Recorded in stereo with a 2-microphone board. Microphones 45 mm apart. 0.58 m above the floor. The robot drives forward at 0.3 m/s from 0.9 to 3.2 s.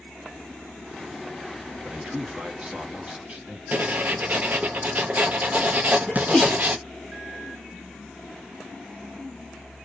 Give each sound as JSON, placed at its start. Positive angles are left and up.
{"t": 1.8, "sound": "a man speaking", "side_deg": -30, "distance_m": 1.0}
{"t": 3.7, "sound": "writing", "side_deg": -40, "distance_m": 0.6}
{"t": 6.1, "sound": "a sneeze", "side_deg": 10, "distance_m": 0.9}